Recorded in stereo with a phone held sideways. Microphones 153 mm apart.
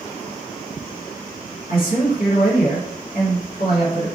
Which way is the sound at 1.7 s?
65° left (ahead or behind).